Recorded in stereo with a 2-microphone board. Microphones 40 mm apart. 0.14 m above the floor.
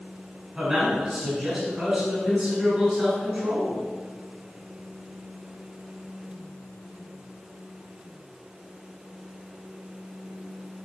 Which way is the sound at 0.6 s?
10° right (ahead or behind).